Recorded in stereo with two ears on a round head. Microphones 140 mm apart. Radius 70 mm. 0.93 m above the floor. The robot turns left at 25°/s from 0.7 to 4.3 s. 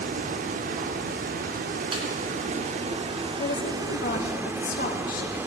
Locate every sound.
0.0 s running water: 70° right, 0.7 m; by 5.5 s 160° right, 0.7 m
1.9 s a snare drum: 35° right (ahead or behind), 2.5 m
3.4 s a woman speaking: 80° left, 1.5 m; by 5.4 s 60° left (ahead or behind), 1.5 m